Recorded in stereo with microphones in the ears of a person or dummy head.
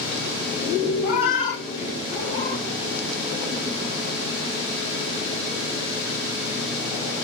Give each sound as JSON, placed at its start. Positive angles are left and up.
{"t": 1.0, "sound": "a cat meowing", "side_deg": 40, "distance_m": 2.5}